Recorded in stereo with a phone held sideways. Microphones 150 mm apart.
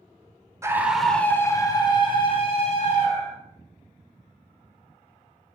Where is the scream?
20° right (ahead or behind), 0.6 m; by 3.4 s 45° left (ahead or behind), 1.7 m.